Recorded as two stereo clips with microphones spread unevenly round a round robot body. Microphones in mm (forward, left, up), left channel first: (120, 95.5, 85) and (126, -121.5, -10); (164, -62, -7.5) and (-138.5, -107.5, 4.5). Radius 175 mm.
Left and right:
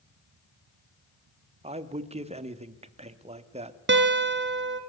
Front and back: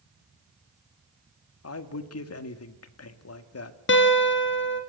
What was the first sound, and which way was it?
A man speaking, 30° right.